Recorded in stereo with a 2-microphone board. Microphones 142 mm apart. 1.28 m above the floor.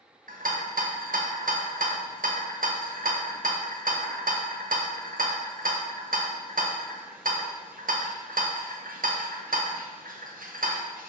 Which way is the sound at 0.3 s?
80° right.